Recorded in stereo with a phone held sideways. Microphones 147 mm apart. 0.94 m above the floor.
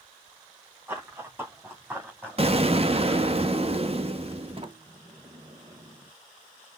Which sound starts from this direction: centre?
Running footsteps, at 0.9 s.